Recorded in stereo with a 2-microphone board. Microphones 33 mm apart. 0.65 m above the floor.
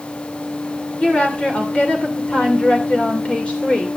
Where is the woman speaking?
40° left (ahead or behind), 2.5 m.